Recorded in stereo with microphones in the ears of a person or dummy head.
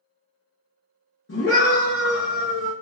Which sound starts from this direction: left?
A scream, at 1.3 s.